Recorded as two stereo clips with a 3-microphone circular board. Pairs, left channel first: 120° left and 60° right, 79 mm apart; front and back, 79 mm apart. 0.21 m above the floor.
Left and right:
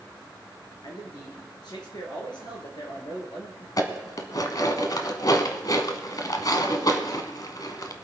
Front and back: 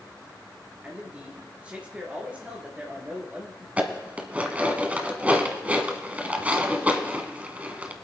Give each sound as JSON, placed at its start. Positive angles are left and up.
{"t": 0.8, "sound": "a man speaking", "azimuth_deg": 110, "distance_m": 4.5}
{"t": 3.8, "sound": "dishes clattering", "azimuth_deg": 115, "distance_m": 1.2}